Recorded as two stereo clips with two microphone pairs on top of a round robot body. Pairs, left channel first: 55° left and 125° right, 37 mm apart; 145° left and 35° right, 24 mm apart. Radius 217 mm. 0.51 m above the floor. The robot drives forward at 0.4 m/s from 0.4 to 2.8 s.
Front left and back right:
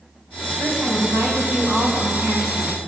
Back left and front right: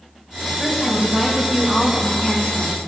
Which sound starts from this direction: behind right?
A woman speaking, at 0.6 s.